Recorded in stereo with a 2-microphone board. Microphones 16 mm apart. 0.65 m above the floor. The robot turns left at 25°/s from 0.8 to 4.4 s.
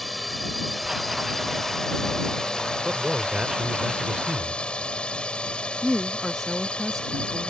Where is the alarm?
I don't hear an alarm.